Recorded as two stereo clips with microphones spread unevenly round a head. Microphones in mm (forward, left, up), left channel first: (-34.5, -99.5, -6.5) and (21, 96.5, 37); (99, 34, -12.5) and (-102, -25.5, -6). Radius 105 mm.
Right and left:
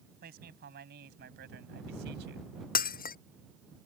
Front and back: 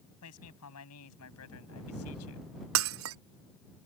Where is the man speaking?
30° left; by 2.5 s 35° left.